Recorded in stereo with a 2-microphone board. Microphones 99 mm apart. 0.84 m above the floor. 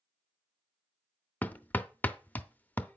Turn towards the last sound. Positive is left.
turn(degrees=20)  # may be behind; listen again after turning